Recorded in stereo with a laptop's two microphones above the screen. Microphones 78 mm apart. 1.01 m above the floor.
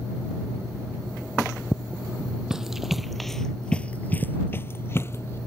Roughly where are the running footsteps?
Centre.